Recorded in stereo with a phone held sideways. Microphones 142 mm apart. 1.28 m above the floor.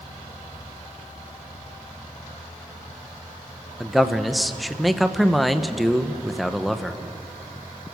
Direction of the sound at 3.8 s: Centre (ahead or behind).